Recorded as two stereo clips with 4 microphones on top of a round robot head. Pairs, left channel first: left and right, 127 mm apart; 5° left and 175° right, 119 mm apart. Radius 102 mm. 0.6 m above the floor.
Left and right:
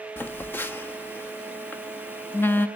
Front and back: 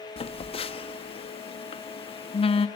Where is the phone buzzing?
20° left, 1.2 m.